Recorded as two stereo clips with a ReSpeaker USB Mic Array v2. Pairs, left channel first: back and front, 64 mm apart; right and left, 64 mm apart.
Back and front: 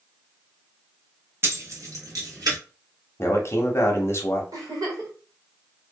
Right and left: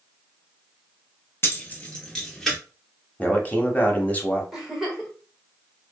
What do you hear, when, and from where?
1.4 s keys jangling: 45° right, 0.6 m; by 2.6 s 5° right, 1.2 m
3.2 s a man speaking: 150° right, 0.7 m
4.5 s a giggle: 5° left, 1.1 m